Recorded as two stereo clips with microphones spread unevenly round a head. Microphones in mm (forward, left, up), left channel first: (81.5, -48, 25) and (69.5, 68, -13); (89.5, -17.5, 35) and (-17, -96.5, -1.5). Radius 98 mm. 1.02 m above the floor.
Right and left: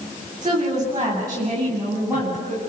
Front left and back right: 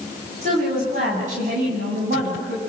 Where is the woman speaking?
165° left, 8.5 m; by 2.6 s 175° left, 9.5 m.